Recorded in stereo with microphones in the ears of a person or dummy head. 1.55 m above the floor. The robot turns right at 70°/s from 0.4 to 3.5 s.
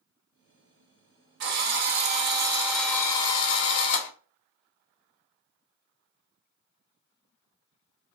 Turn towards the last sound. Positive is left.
turn(degrees=55)